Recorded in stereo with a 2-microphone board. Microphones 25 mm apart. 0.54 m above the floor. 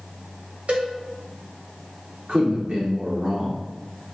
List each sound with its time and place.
0.7 s a cowbell: 70° right (ahead or behind), 1.0 m
2.3 s a man speaking: 45° right (ahead or behind), 1.5 m